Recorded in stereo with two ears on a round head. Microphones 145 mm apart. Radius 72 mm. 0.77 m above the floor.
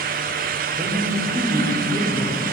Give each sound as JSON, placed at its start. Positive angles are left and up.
{"t": 0.7, "sound": "a woman speaking", "side_deg": -35, "distance_m": 3.0}